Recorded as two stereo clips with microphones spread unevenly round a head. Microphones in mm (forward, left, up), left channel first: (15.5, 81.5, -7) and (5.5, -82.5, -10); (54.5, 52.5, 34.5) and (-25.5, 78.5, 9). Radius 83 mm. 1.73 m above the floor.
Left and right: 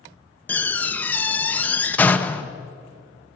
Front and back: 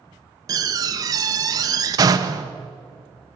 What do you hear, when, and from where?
0.5 s a door slam: 150° left, 1.0 m